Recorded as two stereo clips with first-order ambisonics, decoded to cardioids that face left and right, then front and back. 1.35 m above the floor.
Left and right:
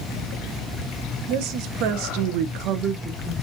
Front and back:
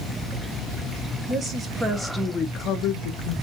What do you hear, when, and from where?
1.3 s a woman speaking: 115° right, 1.1 m; by 3.4 s straight ahead, 0.7 m